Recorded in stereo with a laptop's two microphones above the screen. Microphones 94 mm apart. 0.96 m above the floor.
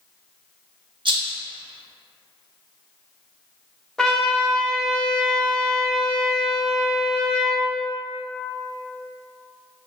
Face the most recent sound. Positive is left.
turn(degrees=10)  # may be behind; listen again after turning